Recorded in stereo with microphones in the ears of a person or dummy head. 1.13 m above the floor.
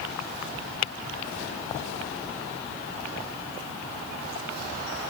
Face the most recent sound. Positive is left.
No sound to turn to.